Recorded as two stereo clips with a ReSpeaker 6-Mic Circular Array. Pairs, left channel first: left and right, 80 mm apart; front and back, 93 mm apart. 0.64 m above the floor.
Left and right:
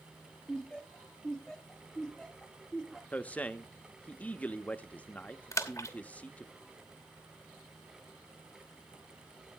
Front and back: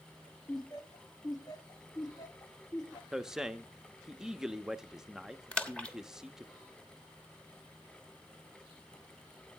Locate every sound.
0.5 s laughter: 10° left, 0.9 m
3.1 s a man speaking: 110° left, 0.6 m
5.5 s a splash: 70° left, 1.2 m